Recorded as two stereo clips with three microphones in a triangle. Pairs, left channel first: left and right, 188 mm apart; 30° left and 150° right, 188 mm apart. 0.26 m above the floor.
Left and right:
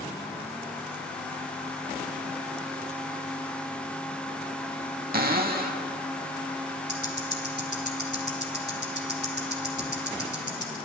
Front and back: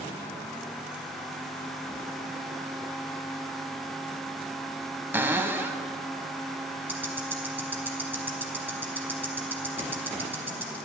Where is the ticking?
70° right, 1.0 m.